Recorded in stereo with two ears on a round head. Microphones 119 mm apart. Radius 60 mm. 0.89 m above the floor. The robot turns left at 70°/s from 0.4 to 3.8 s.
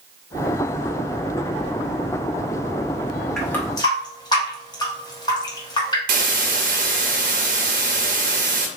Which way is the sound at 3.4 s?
Centre (ahead or behind).